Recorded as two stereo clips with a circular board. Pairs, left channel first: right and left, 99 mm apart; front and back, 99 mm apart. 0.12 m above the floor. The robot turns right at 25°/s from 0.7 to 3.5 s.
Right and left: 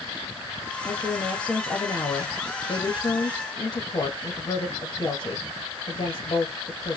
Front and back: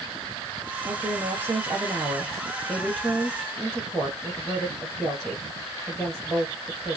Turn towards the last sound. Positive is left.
turn(degrees=-90)